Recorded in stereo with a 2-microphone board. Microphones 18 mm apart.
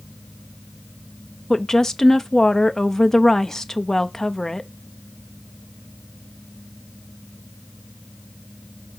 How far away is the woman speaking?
About 0.5 m.